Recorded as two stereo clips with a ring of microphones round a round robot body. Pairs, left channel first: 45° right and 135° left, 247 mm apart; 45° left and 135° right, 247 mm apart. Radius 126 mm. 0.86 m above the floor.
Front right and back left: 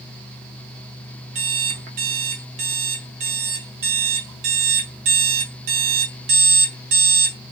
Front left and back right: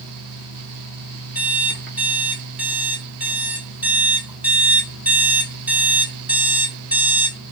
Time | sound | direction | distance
1.4 | an alarm clock | 140° left | 1.0 m